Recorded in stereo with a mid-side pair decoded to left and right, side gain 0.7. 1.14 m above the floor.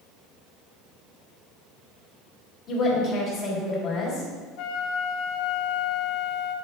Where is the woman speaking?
40° left, 4 m.